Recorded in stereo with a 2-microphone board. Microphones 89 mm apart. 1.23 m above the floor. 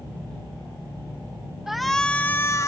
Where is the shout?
5° right (ahead or behind); by 2.7 s 35° left (ahead or behind).